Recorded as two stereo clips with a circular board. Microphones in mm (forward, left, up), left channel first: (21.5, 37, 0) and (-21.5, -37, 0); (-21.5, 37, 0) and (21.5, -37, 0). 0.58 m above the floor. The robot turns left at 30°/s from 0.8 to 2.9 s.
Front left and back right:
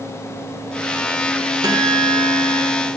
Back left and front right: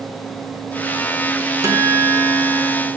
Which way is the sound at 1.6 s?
105° right.